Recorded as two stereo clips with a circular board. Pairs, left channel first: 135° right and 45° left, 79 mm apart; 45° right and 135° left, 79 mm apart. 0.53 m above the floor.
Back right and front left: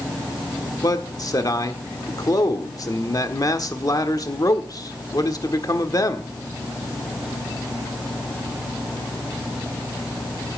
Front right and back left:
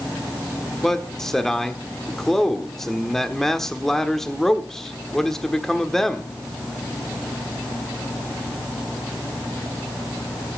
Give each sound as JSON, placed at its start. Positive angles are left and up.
{"t": 0.8, "sound": "a man speaking", "azimuth_deg": -130, "distance_m": 1.3}